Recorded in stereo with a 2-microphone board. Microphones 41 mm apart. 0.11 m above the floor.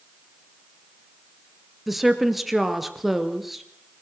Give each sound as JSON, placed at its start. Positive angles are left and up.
{"t": 1.9, "sound": "a woman speaking", "side_deg": -5, "distance_m": 1.8}